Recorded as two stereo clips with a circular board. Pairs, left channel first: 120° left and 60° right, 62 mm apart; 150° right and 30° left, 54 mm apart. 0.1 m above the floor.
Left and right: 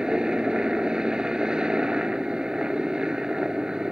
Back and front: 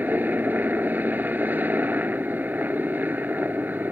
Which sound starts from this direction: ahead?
A helicopter, at 0.0 s.